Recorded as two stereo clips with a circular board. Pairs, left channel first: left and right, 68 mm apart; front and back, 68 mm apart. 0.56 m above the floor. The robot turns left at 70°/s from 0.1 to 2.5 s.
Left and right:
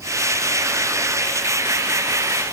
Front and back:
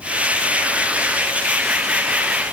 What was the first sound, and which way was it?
Only background noise.